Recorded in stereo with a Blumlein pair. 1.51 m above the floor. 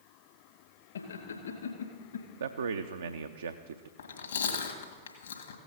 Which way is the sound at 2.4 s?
70° right.